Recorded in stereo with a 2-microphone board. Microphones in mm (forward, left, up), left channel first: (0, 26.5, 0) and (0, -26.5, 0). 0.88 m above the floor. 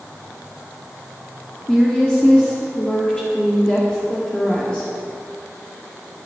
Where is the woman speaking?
20° left (ahead or behind), 1.6 m.